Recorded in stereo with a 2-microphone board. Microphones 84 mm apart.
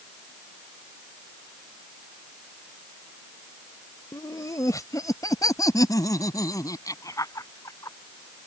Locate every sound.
4.1 s laughter: 45° left (ahead or behind); by 8.0 s 40° left (ahead or behind)